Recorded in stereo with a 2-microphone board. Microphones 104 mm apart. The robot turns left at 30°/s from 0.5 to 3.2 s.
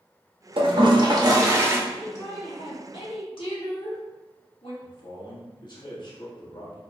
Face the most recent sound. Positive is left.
turn(degrees=45)  # may be behind; listen again after turning